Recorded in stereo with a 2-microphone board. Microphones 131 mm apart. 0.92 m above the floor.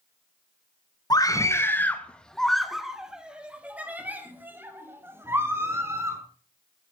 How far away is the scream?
About 1.1 m.